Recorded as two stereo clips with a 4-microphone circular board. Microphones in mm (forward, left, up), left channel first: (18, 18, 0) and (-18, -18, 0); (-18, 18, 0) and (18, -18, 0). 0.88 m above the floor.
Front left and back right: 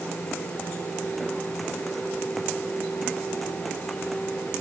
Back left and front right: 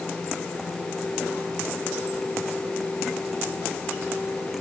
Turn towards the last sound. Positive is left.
No sound to turn to.